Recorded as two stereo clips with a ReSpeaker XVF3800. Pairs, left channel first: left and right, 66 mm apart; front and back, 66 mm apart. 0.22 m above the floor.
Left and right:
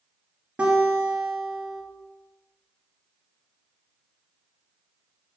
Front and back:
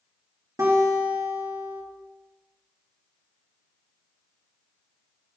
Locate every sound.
0.6 s a guitar: 160° right, 2.5 m